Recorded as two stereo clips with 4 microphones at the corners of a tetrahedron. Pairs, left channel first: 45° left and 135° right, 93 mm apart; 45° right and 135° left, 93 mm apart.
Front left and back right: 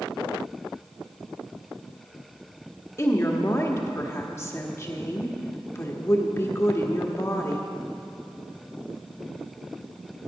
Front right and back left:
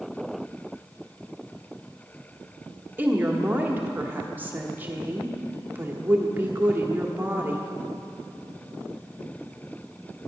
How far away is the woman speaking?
About 1.4 m.